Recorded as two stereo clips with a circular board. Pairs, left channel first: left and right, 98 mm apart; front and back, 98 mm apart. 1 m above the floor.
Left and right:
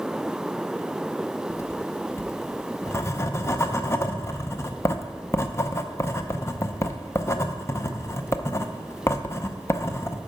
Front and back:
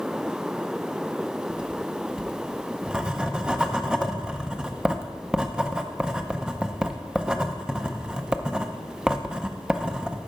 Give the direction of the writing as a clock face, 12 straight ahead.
8 o'clock.